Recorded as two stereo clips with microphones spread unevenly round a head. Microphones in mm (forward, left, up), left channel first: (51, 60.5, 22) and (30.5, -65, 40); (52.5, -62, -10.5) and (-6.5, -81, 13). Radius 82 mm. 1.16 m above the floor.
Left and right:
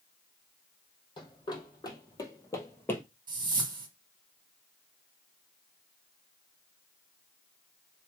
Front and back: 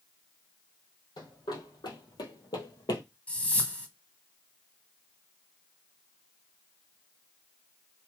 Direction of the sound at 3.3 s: 60° right.